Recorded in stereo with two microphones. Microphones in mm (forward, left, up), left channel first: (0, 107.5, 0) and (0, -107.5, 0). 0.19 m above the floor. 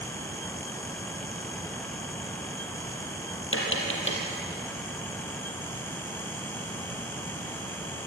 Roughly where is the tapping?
Left.